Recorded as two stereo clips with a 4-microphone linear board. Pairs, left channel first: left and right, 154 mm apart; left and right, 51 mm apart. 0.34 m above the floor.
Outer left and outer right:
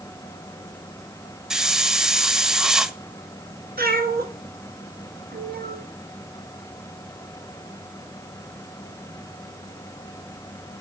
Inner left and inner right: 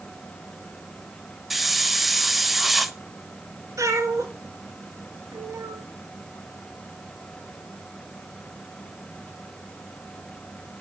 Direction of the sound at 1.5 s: 5° right (ahead or behind).